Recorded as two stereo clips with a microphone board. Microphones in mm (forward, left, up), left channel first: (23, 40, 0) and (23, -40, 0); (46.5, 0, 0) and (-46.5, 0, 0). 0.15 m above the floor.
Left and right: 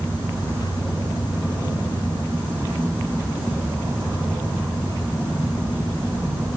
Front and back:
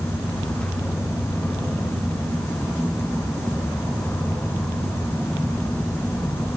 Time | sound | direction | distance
0.0 | an insect | 45° right | 1.6 m